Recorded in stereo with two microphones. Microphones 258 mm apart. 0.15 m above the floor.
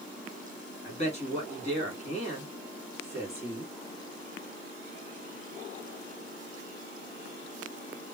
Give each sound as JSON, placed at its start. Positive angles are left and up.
{"t": 0.8, "sound": "a man speaking", "side_deg": 25, "distance_m": 1.8}